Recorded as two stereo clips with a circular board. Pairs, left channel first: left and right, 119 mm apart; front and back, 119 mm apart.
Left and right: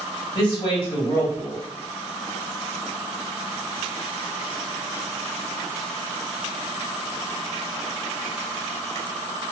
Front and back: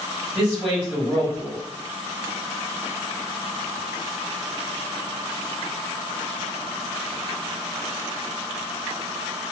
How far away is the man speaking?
About 1.8 m.